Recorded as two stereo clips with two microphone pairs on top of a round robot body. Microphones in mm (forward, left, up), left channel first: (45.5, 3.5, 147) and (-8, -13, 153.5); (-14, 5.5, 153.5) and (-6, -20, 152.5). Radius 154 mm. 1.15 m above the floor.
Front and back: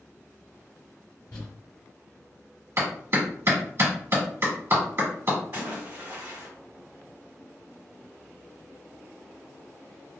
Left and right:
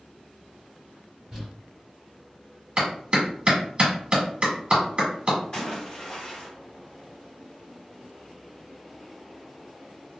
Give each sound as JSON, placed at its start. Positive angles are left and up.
{"t": 1.3, "sound": "crumpling", "azimuth_deg": 10, "distance_m": 1.3}
{"t": 2.8, "sound": "a clap", "azimuth_deg": -120, "distance_m": 1.4}
{"t": 5.5, "sound": "a splash", "azimuth_deg": 165, "distance_m": 1.8}